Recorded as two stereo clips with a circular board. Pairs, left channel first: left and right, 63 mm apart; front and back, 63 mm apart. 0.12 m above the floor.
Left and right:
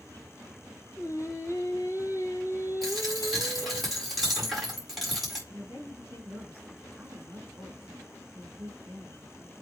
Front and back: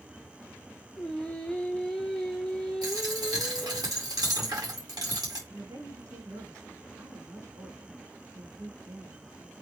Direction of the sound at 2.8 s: Straight behind.